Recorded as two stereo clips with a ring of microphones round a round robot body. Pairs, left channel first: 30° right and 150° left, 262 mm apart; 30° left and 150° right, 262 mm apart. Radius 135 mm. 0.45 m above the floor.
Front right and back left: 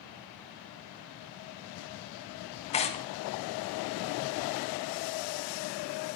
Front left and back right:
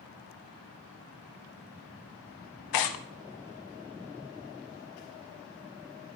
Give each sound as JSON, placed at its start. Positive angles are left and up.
{"t": 2.7, "sound": "tearing paper", "azimuth_deg": 40, "distance_m": 0.7}